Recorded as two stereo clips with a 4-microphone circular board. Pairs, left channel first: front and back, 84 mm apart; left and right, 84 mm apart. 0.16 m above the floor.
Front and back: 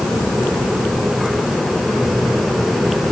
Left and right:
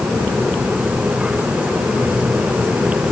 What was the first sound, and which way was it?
Only background noise.